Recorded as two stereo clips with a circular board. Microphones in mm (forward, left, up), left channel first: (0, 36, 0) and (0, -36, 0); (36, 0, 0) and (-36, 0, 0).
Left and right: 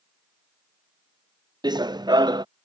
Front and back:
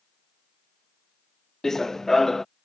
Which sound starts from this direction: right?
Running footsteps, at 1.6 s.